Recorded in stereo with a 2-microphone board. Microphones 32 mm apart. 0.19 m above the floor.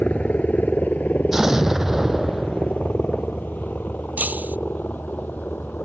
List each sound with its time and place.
0.0 s a helicopter: 55° left (ahead or behind); by 5.9 s 70° left (ahead or behind)
1.3 s an explosion: 10° right (ahead or behind)
4.2 s breaking glass: 65° right (ahead or behind)